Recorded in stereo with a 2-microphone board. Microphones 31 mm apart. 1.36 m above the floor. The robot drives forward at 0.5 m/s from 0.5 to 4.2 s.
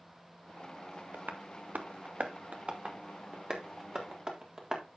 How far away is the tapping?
About 0.8 m.